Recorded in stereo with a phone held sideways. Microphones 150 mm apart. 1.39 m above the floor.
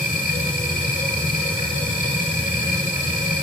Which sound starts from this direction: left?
A machine running, at 0.0 s.